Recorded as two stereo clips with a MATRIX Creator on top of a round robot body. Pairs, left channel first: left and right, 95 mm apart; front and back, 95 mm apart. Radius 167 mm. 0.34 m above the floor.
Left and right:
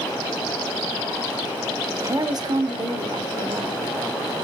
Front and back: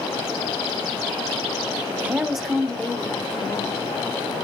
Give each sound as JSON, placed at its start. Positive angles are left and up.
{"t": 2.0, "sound": "a woman speaking", "azimuth_deg": -125, "distance_m": 1.0}